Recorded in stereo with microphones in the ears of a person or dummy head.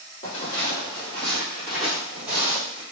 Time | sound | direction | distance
0.2 | footsteps | 35° left (ahead or behind) | 2.0 m